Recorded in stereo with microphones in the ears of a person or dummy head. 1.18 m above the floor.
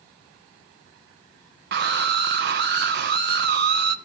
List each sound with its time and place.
1.7 s a scream: 50° right (ahead or behind), 0.9 m